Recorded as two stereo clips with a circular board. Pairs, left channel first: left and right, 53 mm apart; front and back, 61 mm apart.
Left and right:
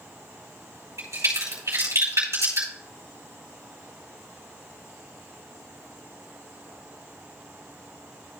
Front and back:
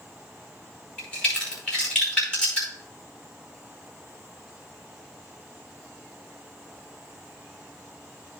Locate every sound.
1.0 s a crack: 75° right, 4.5 m